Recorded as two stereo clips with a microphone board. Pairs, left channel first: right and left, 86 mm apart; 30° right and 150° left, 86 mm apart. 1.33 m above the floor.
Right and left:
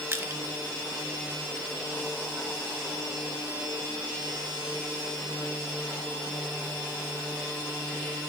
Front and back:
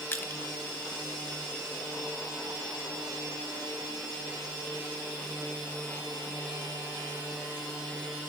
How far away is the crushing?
About 1.1 m.